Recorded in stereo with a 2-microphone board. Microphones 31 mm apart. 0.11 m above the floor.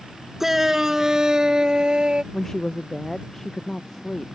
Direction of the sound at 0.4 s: 10° right (ahead or behind).